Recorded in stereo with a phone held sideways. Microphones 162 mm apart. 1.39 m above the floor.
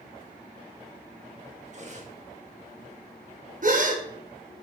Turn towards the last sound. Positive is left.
turn(degrees=-55)  # may be behind; listen again after turning